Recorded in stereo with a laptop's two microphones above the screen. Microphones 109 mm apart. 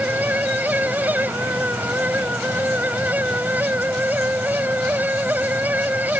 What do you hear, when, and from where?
0.0 s a fan: 15° right (ahead or behind)